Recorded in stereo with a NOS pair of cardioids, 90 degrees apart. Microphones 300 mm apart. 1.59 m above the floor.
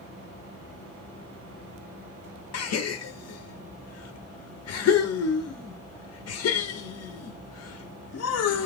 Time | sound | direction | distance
2.5 | a gasp | 55° left | 0.8 m